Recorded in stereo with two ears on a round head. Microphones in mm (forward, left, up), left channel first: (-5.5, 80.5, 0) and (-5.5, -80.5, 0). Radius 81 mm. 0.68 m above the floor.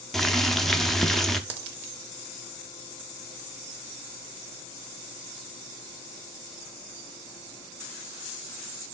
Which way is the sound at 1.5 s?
60° right (ahead or behind).